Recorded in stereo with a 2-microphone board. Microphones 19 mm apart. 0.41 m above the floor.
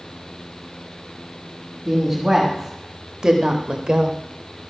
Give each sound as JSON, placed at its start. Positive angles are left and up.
{"t": 1.9, "sound": "a woman speaking", "side_deg": -15, "distance_m": 2.5}